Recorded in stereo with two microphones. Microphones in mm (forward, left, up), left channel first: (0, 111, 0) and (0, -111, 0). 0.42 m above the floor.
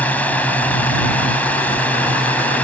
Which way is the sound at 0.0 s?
5° left (ahead or behind).